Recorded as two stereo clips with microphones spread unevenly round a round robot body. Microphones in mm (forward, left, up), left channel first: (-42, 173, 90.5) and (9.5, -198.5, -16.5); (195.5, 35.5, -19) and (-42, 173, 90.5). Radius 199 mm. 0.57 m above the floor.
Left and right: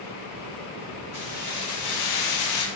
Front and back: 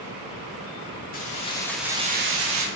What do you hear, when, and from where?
1.1 s keys jangling: 20° left, 1.0 m; by 2.7 s 120° left, 0.7 m